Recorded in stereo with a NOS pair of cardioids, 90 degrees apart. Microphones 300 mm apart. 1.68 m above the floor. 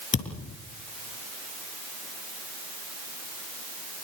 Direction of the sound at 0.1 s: 40° left.